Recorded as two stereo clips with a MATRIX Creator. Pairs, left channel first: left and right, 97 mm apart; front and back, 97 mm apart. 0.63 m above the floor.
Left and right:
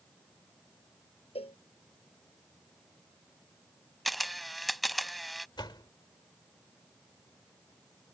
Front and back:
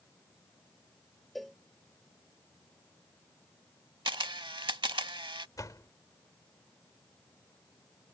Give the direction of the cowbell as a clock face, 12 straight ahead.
9 o'clock.